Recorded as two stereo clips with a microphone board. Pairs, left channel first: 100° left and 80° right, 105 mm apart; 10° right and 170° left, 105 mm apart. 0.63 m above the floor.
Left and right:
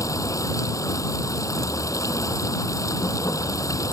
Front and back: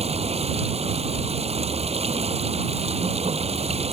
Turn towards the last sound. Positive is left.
turn(degrees=160)